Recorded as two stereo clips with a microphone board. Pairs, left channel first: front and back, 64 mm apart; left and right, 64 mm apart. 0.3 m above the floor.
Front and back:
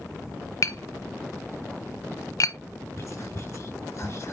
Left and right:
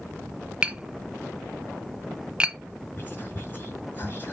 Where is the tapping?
20° right, 0.7 m.